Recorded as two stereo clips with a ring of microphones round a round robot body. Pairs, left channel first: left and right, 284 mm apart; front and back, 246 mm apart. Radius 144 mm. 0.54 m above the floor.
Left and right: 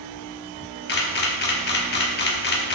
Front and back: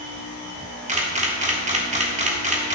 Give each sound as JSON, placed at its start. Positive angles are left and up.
{"t": 0.9, "sound": "a camera shutter", "azimuth_deg": 130, "distance_m": 1.3}